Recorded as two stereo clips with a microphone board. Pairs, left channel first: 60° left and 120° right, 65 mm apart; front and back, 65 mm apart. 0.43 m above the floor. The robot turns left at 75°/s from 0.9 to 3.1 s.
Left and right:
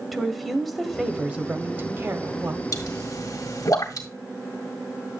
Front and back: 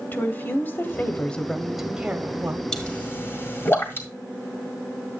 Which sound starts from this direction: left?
A pop, at 2.7 s.